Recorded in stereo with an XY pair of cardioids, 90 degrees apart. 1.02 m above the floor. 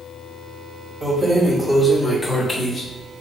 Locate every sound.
1.0 s keys jangling: 25° right, 0.9 m; by 3.2 s 50° left, 1.1 m